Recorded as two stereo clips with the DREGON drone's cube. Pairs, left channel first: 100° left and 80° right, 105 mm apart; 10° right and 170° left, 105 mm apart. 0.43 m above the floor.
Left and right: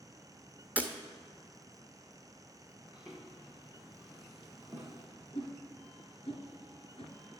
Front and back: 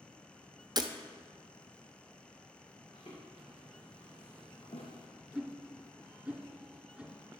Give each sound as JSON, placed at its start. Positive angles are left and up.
{"t": 0.8, "sound": "breaking glass", "azimuth_deg": -150, "distance_m": 0.9}
{"t": 2.9, "sound": "footsteps", "azimuth_deg": 5, "distance_m": 2.5}
{"t": 5.3, "sound": "a whoosh", "azimuth_deg": 85, "distance_m": 2.5}